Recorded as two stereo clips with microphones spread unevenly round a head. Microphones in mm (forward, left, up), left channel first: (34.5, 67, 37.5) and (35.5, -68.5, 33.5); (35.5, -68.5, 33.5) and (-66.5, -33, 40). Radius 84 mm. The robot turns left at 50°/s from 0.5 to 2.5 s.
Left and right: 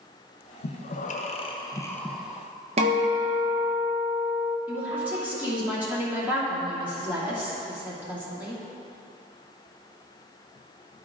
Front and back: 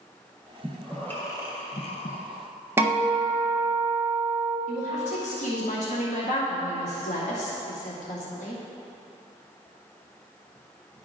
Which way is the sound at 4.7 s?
10° right.